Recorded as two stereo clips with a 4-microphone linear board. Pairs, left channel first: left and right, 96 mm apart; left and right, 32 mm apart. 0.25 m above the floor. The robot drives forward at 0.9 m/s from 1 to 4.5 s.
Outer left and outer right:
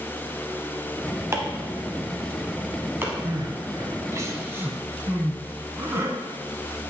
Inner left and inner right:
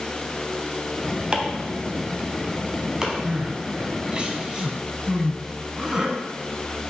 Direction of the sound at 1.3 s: 25° right (ahead or behind).